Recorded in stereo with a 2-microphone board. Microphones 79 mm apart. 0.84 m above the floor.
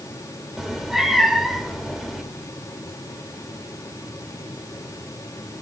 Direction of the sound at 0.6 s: Centre (ahead or behind).